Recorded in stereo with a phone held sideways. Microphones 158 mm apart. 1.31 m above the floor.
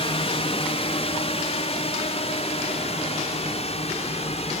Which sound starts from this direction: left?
A drone, at 0.0 s.